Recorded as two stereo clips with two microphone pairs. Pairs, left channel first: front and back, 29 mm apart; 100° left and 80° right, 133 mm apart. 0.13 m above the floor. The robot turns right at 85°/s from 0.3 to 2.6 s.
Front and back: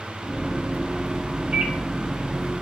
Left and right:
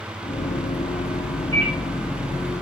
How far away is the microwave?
About 1.4 m.